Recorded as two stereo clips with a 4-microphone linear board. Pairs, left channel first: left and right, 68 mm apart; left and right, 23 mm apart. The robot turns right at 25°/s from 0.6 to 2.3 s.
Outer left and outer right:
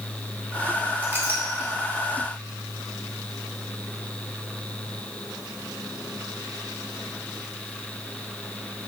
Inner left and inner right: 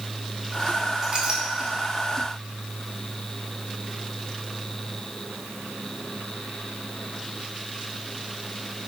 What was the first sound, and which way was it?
A clink, 30° right (ahead or behind).